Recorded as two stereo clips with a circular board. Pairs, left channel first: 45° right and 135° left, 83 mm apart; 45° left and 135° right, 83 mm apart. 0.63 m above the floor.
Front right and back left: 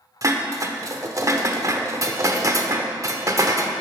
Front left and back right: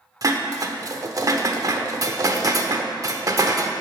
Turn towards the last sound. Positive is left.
turn(degrees=180)